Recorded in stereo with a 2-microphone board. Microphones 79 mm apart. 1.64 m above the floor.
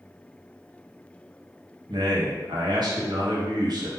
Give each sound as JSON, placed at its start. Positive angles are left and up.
{"t": 1.9, "sound": "a man speaking", "side_deg": -60, "distance_m": 1.5}